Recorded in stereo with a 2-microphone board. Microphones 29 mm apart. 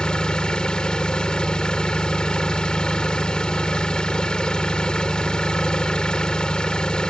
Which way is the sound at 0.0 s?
30° left (ahead or behind).